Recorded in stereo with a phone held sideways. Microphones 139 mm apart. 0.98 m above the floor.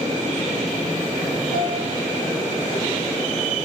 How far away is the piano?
About 4.5 m.